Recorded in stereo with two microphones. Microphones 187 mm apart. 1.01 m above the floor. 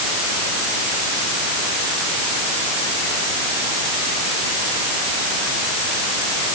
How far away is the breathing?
No breathing in this recording.